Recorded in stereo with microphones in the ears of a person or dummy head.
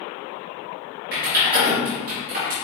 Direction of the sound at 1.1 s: 50° right (ahead or behind).